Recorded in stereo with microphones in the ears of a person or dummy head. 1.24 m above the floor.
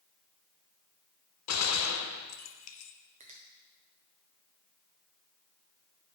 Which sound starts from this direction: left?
A gunshot, at 1.5 s.